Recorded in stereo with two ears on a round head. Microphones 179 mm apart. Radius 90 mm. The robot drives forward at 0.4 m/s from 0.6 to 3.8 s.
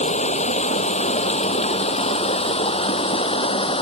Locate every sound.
0.0 s running water: 35° left (ahead or behind); by 3.8 s 30° left (ahead or behind)